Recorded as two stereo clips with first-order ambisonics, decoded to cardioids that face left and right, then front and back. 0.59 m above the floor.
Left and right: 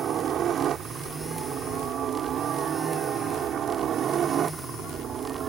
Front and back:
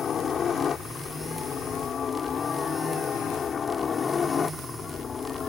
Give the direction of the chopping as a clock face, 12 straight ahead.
No chopping in this recording.